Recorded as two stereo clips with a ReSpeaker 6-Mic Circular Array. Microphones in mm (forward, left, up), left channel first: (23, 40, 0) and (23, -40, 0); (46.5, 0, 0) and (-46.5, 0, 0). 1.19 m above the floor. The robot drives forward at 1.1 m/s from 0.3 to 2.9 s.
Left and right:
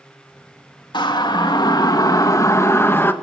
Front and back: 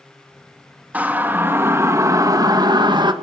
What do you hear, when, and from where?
0.9 s a siren: 105° left, 2.5 m; by 3.1 s 150° left, 1.7 m